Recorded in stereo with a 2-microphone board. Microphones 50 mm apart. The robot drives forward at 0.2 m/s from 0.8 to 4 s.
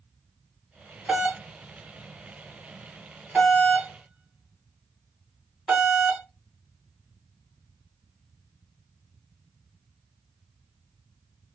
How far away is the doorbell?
About 1.5 m.